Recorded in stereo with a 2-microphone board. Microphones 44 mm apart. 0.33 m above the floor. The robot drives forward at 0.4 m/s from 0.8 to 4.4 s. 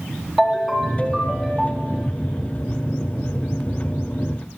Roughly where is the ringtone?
Centre.